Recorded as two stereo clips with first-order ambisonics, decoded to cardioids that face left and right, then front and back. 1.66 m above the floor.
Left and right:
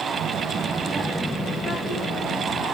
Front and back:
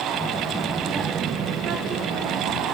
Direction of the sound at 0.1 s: 80° right.